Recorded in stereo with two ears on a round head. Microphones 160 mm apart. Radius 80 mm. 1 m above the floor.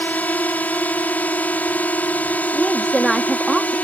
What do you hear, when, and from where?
0.0 s a drone: 10° left (ahead or behind)
2.5 s a woman speaking: centre (ahead or behind)